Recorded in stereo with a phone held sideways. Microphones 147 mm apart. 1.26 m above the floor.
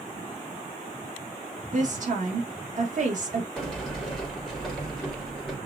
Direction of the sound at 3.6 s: Centre (ahead or behind).